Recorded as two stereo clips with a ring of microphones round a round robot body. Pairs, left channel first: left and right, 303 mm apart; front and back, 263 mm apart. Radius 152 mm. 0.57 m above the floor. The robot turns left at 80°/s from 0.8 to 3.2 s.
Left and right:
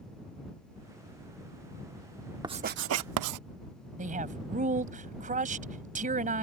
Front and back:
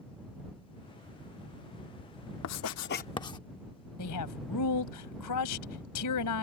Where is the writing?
15° right; by 3.4 s 75° right.